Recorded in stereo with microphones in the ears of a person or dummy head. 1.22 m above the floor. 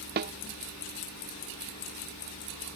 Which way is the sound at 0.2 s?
50° right (ahead or behind).